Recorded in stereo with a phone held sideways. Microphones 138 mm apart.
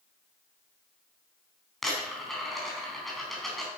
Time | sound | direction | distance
1.8 | a dropped coin | centre (ahead or behind) | 4 m